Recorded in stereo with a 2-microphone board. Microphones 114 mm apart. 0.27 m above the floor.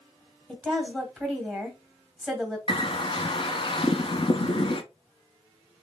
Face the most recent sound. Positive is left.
turn(degrees=50)  # may be behind; listen again after turning